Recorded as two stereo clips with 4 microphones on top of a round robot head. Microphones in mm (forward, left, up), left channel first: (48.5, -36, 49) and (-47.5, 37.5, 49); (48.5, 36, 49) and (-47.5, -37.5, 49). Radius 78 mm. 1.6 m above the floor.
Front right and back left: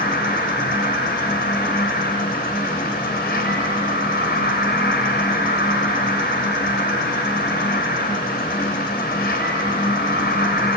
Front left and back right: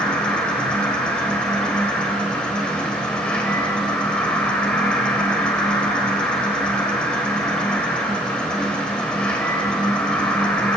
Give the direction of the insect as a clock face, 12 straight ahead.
2 o'clock.